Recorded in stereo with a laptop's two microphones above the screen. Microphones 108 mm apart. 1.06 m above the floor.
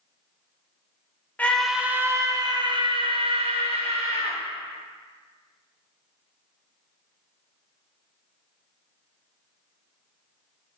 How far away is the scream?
About 0.6 m.